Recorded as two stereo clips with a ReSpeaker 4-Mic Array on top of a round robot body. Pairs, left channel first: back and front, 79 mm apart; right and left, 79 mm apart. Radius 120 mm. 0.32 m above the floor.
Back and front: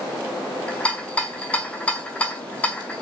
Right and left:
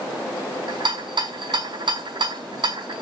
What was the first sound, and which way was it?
A rattle, 105° left.